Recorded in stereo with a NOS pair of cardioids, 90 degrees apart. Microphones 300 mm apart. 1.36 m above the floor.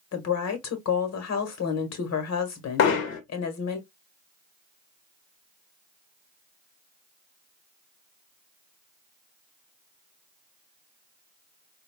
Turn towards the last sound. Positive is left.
turn(degrees=60)